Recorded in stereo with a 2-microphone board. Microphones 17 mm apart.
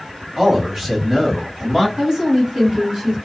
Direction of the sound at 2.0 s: 50° right (ahead or behind).